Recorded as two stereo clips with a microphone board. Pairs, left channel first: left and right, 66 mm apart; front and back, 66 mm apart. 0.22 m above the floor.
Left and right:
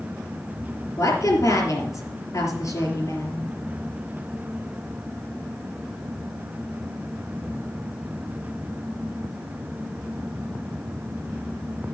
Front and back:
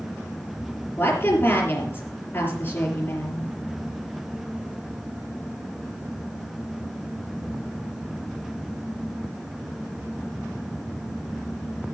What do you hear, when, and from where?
1.0 s a woman speaking: 50° left, 3.5 m